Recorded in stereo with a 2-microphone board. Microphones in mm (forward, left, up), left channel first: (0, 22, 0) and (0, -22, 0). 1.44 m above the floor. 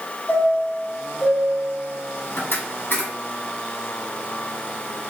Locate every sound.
0.3 s a chime: 45° left (ahead or behind), 1.8 m